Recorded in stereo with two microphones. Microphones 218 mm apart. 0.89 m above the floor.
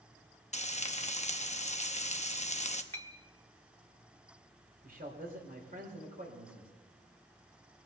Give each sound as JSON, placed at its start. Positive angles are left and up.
{"t": 0.5, "sound": "frying", "side_deg": 35, "distance_m": 0.8}
{"t": 2.9, "sound": "a clink", "side_deg": 80, "distance_m": 1.2}
{"t": 4.8, "sound": "a man speaking", "side_deg": -45, "distance_m": 3.5}